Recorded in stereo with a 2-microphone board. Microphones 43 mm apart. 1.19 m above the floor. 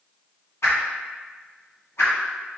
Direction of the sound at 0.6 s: 80° left.